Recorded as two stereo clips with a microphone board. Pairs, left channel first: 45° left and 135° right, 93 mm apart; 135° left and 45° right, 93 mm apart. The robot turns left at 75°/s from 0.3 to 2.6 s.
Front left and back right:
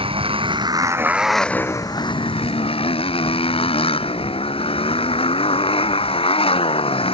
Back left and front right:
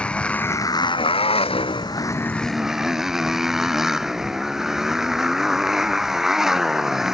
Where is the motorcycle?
145° right; by 7.1 s 40° left.